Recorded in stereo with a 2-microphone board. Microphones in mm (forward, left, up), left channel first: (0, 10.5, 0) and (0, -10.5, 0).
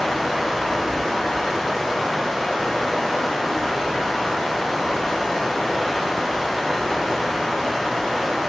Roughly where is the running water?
Centre.